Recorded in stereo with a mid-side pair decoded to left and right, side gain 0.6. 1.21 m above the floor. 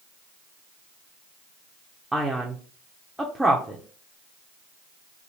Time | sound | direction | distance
2.1 | a man speaking | 5° right | 0.6 m